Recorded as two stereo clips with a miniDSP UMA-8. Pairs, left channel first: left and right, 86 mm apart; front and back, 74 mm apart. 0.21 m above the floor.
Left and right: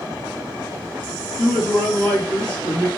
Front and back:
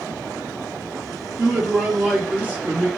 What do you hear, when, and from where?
1.4 s a man speaking: 145° left, 1.3 m